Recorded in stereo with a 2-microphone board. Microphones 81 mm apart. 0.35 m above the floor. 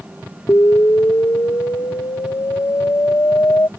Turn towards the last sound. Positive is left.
turn(degrees=35)  # may be behind; listen again after turning